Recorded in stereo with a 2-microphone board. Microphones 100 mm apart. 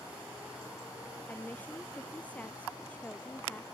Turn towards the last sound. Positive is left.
turn(degrees=15)  # may be behind; listen again after turning